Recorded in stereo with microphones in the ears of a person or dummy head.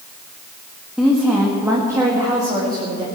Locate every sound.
1.0 s a woman speaking: 5° right (ahead or behind), 1.7 m; by 3.0 s 30° right (ahead or behind), 2.5 m